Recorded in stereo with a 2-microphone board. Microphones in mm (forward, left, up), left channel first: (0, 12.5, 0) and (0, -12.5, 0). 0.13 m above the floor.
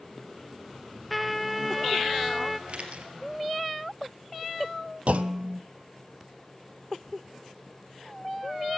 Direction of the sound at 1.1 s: 5° right (ahead or behind).